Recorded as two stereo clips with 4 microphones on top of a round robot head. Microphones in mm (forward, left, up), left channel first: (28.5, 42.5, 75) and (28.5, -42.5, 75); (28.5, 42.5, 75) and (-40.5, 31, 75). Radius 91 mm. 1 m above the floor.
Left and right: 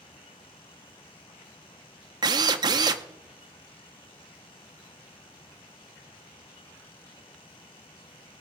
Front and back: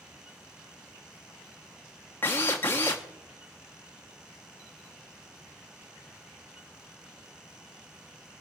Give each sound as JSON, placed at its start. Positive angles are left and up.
{"t": 2.2, "sound": "a drill", "azimuth_deg": -60, "distance_m": 0.6}